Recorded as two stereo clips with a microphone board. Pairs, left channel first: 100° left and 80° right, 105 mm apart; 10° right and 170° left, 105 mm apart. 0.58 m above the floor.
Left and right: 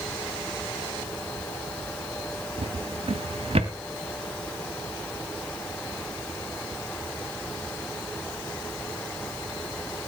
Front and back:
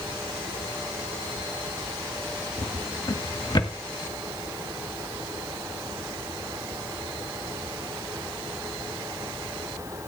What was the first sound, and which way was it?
A drawer, 55° right.